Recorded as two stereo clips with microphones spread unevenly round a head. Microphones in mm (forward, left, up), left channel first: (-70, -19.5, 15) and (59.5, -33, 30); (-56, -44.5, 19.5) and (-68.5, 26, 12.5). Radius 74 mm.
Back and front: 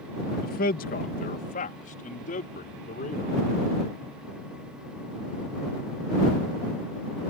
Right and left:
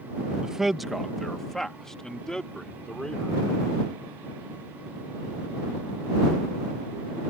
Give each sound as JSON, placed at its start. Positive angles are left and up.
{"t": 0.4, "sound": "a man speaking", "azimuth_deg": 180}